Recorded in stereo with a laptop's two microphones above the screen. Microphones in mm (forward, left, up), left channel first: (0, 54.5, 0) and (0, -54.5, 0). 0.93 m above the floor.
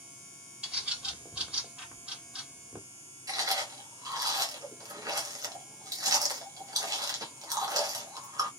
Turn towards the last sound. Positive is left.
turn(degrees=-35)  # may be behind; listen again after turning